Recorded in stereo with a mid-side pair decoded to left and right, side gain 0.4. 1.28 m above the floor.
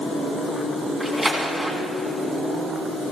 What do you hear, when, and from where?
1.0 s a splash: 25° right, 3 m